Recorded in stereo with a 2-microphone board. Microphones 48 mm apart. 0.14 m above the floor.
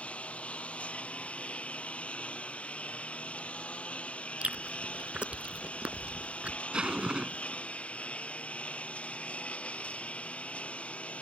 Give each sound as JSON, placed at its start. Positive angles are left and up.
{"t": 0.0, "sound": "a lawn mower", "side_deg": 25}
{"t": 4.4, "sound": "chewing", "side_deg": -25}
{"t": 6.7, "sound": "a zipper", "side_deg": -20}